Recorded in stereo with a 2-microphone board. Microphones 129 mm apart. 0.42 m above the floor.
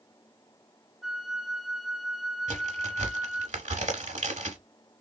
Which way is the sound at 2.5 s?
70° right (ahead or behind).